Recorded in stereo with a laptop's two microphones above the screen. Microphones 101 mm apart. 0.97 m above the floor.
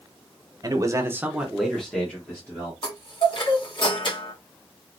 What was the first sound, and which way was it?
A man speaking, 35° right (ahead or behind).